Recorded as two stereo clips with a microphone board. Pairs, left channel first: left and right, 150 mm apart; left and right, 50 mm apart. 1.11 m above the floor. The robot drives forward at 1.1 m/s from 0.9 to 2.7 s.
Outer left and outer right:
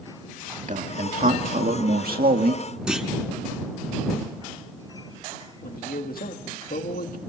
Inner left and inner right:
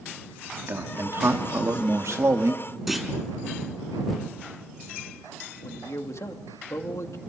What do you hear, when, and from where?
0.7 s a man speaking: 55° right (ahead or behind), 2.5 m; by 2.6 s 70° right (ahead or behind), 2 m
2.9 s a clunk: 5° right (ahead or behind), 3.5 m
5.6 s a man speaking: 75° left (ahead or behind), 2 m